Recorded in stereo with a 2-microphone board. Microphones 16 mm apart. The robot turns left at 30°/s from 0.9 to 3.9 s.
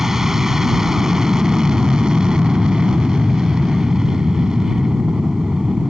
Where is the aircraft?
35° right; by 5.9 s 125° right.